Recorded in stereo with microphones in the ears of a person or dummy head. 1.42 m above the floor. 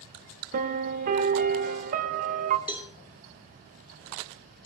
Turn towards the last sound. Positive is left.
turn(degrees=-10)  # may be behind; listen again after turning